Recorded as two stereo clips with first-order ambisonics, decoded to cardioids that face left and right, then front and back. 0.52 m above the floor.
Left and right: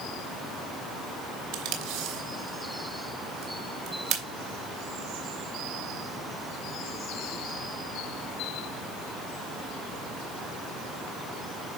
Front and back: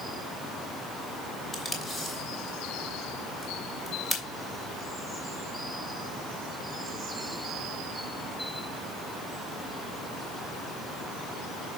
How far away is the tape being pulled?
About 2.5 m.